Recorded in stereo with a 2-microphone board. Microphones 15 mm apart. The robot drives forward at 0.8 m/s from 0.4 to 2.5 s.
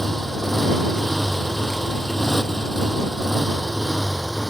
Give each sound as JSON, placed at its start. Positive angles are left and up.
{"t": 0.0, "sound": "a motorcycle", "side_deg": 20}